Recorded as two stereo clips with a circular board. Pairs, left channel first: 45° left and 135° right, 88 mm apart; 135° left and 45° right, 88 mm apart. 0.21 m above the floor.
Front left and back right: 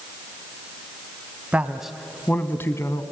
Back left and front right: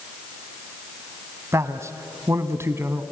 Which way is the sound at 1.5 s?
75° right.